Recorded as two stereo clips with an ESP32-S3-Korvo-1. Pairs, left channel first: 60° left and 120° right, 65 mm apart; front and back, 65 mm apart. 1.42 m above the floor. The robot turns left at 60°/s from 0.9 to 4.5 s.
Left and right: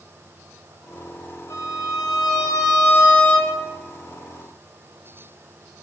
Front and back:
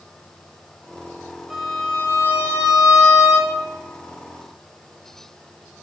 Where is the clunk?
I don't hear a clunk.